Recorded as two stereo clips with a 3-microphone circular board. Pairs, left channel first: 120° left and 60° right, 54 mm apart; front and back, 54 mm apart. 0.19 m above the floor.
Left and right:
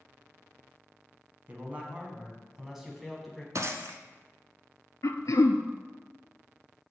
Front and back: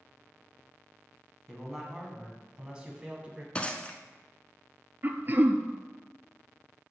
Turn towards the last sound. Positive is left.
turn(degrees=125)